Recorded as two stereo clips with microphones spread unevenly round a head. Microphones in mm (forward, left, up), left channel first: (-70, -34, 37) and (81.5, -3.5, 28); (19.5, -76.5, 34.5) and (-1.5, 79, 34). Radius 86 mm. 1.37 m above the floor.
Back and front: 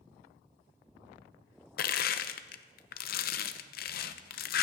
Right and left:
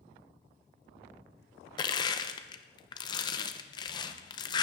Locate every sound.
1.8 s crushing: 145° right, 0.7 m